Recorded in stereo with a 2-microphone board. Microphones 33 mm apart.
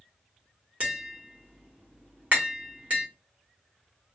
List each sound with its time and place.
0.8 s tapping: 45° right (ahead or behind), 1.2 m